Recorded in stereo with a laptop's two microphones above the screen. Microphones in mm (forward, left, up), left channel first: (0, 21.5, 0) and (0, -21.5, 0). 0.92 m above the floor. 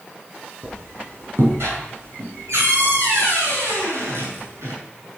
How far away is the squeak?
About 6 m.